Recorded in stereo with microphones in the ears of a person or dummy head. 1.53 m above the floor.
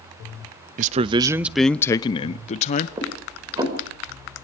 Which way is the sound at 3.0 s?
20° right (ahead or behind).